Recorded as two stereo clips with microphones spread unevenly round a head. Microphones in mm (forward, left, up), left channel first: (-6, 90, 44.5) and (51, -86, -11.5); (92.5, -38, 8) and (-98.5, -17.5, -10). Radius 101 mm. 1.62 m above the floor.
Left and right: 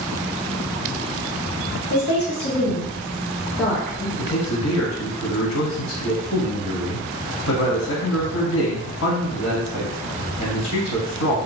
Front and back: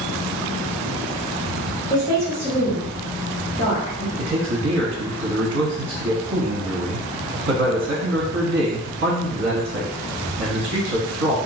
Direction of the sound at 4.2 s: 135° left.